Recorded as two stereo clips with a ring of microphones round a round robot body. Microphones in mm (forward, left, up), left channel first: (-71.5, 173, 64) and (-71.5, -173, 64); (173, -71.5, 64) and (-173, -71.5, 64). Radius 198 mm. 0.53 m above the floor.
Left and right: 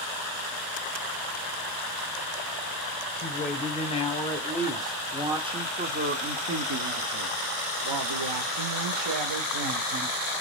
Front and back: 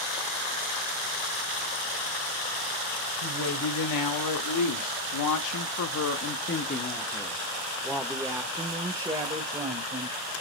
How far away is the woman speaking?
About 1.9 m.